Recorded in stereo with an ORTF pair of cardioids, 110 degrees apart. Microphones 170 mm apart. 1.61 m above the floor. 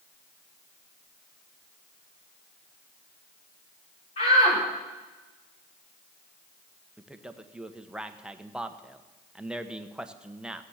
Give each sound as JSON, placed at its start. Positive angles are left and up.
{"t": 4.2, "sound": "a shout", "azimuth_deg": 40, "distance_m": 3.0}
{"t": 7.0, "sound": "a man speaking", "azimuth_deg": -5, "distance_m": 1.2}